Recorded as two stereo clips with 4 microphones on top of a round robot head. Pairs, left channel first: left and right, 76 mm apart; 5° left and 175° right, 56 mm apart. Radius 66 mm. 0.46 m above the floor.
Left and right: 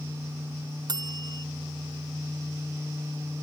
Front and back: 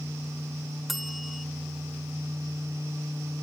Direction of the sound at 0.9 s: 90° right.